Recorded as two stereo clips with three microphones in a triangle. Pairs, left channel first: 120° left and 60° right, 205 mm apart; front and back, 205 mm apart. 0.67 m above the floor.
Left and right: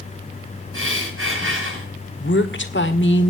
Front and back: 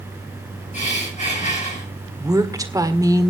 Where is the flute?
I don't hear a flute.